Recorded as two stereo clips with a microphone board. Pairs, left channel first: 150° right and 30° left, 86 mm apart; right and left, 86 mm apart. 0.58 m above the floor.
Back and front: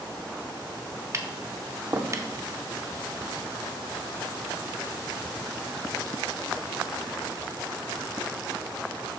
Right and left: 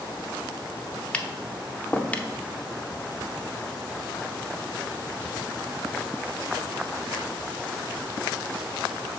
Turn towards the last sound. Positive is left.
turn(degrees=-15)